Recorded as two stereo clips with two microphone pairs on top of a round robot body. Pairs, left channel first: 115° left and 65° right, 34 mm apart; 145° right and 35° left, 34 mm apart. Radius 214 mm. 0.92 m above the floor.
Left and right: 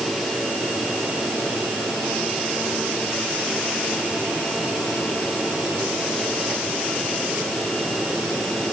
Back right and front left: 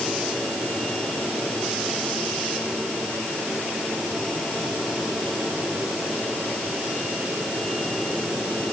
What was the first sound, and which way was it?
Only background noise.